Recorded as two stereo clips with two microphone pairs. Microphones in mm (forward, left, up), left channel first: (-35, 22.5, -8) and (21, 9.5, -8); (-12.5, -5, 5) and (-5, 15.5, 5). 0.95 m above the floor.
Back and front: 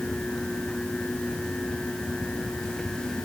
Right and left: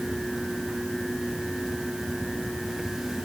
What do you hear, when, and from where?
Only background noise.